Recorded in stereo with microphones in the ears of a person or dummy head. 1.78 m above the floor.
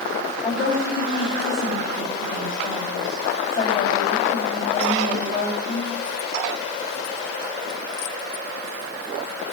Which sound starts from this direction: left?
A woman speaking, at 0.4 s.